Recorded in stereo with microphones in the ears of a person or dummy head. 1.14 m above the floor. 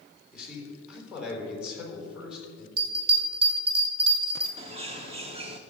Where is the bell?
40° right (ahead or behind), 3 m.